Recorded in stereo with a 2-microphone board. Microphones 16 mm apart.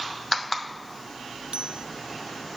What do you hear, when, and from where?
1.5 s a bicycle bell: 75° right (ahead or behind)